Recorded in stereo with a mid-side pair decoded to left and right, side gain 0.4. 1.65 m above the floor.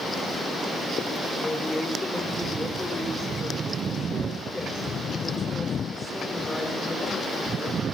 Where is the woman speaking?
15° left, 6.5 m.